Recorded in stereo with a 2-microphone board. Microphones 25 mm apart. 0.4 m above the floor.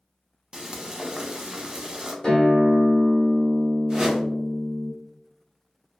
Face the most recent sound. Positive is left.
turn(degrees=-30)  # may be behind; listen again after turning